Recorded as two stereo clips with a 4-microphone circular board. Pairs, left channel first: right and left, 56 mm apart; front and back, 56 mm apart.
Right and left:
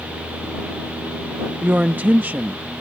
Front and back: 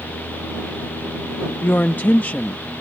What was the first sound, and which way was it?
A woman speaking, 40° left.